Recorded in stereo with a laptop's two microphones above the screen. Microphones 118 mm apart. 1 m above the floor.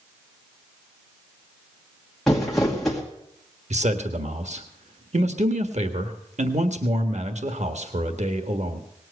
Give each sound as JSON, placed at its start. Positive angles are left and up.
{"t": 2.3, "sound": "crumpling", "side_deg": 0, "distance_m": 2.0}
{"t": 3.7, "sound": "a man speaking", "side_deg": -70, "distance_m": 1.5}